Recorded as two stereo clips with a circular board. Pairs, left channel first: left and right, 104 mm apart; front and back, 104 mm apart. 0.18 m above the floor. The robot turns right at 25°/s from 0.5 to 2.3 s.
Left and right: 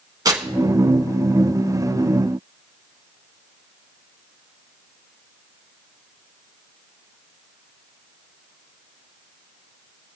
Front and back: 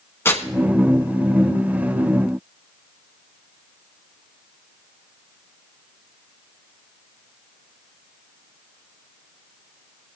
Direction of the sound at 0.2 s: 55° right.